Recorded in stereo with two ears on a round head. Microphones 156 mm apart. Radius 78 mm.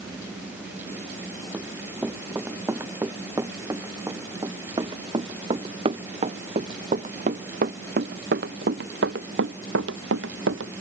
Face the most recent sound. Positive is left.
turn(degrees=-80)